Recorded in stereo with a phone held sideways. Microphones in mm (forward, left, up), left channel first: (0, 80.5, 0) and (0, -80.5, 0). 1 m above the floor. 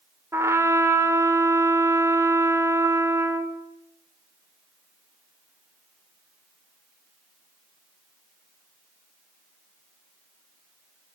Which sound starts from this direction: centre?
A trumpet, at 0.3 s.